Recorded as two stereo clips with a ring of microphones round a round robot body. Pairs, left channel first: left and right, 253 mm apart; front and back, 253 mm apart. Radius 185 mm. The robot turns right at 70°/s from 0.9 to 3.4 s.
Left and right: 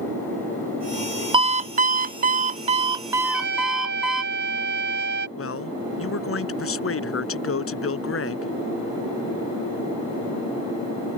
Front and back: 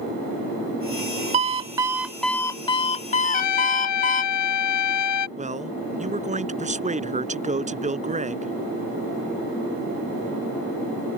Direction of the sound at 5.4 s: 120° left.